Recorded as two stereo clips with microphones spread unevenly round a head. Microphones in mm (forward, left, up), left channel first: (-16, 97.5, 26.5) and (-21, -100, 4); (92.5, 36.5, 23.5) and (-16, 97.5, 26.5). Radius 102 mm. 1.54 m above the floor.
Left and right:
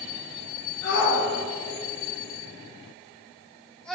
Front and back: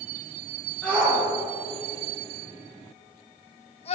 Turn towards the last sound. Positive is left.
turn(degrees=0)